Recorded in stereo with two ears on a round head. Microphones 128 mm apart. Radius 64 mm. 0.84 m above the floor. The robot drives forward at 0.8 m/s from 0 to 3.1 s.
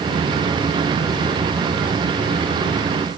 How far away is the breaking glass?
I don't hear breaking glass.